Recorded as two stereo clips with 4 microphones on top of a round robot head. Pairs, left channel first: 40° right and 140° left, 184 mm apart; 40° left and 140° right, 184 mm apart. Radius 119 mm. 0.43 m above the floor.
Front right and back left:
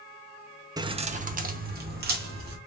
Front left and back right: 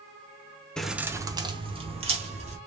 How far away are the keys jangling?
About 0.5 m.